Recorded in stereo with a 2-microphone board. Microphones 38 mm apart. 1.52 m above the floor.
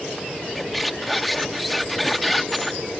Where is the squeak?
Centre (ahead or behind).